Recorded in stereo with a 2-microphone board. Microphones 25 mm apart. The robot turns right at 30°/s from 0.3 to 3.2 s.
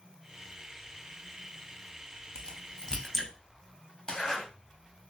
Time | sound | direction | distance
2.4 | a crack | 40° left (ahead or behind) | 0.8 m
4.1 | a zipper | 30° left (ahead or behind) | 1.4 m